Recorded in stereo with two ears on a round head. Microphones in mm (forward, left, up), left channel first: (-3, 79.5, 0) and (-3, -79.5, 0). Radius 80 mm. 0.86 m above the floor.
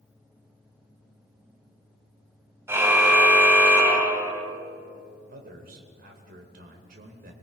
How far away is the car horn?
About 3 m.